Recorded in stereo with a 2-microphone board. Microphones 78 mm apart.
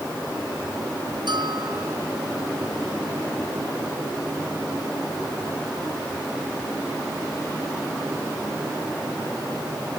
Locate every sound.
1.3 s a bell: 75° right (ahead or behind)